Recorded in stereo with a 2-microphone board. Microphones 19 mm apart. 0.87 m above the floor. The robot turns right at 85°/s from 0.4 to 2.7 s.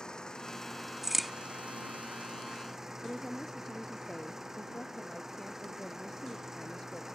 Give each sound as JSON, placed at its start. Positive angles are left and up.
{"t": 0.0, "sound": "an engine running", "azimuth_deg": 140}
{"t": 1.0, "sound": "a crack", "side_deg": -20}
{"t": 3.0, "sound": "a woman speaking", "side_deg": 20}